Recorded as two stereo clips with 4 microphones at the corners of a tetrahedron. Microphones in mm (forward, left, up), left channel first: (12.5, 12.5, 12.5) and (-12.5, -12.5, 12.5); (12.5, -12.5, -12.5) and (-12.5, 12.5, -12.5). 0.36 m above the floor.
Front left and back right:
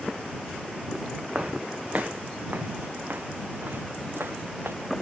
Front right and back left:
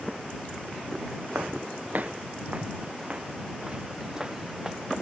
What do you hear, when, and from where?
1.4 s footsteps: 170° left; by 4.8 s 145° right